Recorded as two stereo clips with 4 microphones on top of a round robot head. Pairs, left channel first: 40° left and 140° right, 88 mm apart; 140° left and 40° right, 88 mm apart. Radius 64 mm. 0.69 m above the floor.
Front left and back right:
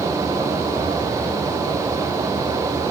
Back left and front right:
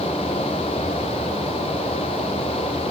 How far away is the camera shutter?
I don't hear a camera shutter.